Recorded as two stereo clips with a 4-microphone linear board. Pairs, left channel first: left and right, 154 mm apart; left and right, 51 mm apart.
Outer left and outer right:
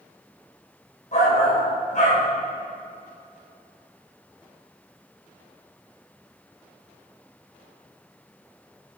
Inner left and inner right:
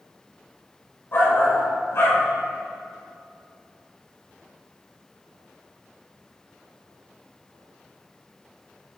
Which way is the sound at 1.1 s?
50° left (ahead or behind).